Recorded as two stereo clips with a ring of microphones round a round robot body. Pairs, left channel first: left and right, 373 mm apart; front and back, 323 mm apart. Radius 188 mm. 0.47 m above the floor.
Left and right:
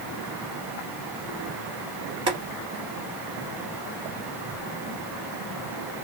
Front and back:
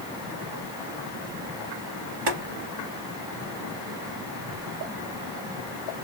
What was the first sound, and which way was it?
Boiling, 170° right.